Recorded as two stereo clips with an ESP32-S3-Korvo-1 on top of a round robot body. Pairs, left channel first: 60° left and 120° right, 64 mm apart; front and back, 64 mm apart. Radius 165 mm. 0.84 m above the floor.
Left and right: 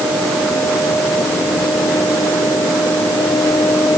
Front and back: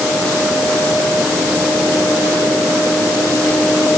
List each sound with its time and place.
Only background noise.